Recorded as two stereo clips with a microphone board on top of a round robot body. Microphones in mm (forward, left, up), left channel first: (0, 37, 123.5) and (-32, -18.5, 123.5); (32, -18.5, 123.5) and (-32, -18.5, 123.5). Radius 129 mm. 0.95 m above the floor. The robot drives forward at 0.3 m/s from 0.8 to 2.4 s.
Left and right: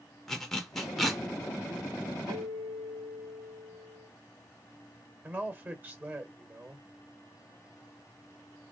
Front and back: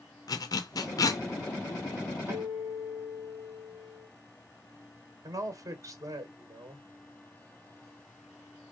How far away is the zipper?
About 0.8 m.